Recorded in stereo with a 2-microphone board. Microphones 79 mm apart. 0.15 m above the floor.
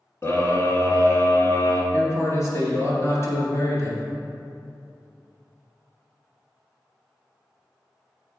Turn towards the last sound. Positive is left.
turn(degrees=40)  # may be behind; listen again after turning